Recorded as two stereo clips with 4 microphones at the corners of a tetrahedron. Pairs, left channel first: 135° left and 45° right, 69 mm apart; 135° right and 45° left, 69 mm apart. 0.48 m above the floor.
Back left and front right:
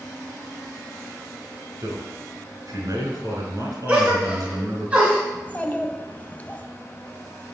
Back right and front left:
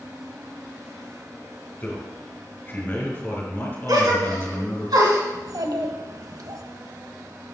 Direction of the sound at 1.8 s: 75° right.